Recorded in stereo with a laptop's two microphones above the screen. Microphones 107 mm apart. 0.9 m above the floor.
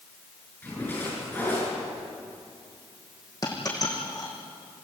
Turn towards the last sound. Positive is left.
turn(degrees=40)  # may be behind; listen again after turning